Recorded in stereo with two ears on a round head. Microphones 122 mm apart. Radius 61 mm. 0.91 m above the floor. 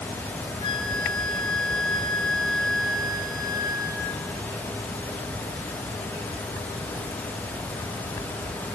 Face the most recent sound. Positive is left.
turn(degrees=35)  # may be behind; listen again after turning